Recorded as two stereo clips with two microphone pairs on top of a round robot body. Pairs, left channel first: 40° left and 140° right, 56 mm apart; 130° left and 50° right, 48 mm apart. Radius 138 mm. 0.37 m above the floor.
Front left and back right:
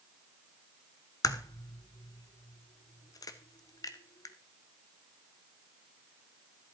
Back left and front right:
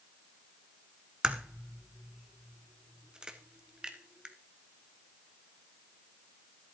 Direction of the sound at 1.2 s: 30° left.